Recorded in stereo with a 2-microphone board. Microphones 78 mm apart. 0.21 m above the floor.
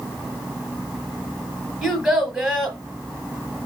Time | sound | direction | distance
1.8 | a child speaking | 10° right (ahead or behind) | 0.9 m